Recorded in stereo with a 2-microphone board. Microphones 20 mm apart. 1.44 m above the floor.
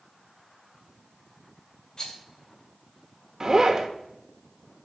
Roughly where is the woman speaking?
No woman speaking in this recording.